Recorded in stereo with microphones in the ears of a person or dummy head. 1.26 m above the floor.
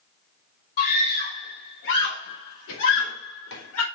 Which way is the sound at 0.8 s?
55° left (ahead or behind).